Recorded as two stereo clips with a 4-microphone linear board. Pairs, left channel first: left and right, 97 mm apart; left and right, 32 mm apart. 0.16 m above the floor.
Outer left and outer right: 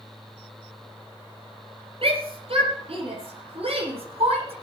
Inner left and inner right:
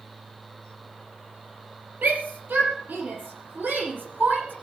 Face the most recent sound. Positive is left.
turn(degrees=-80)